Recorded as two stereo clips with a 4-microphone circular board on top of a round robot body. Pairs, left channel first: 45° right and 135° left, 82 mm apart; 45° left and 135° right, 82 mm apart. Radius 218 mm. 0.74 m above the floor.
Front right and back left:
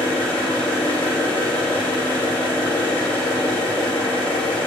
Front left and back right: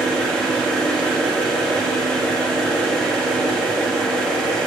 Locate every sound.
0.0 s an engine running: 40° right, 2 m